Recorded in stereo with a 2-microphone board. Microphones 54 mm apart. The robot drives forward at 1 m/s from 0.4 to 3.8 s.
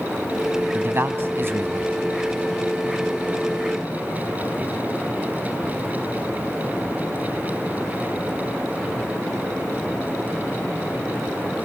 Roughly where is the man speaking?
Right.